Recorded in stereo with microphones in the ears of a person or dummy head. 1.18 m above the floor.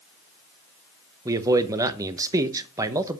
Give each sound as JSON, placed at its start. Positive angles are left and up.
{"t": 1.2, "sound": "a man speaking", "side_deg": -20, "distance_m": 1.0}